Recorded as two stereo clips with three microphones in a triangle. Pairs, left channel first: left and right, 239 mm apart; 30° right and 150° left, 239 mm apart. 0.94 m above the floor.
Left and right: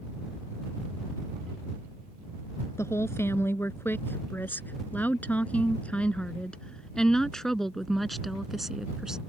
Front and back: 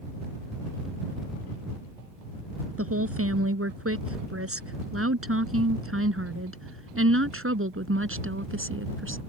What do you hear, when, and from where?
2.8 s a woman speaking: 170° left; by 9.2 s straight behind